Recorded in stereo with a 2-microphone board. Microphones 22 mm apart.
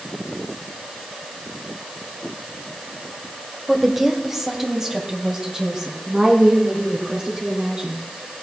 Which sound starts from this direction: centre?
A woman speaking, at 3.7 s.